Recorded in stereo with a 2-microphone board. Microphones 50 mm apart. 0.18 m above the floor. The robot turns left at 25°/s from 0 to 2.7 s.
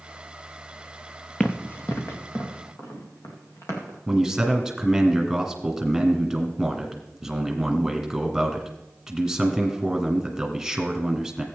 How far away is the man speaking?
About 1.7 m.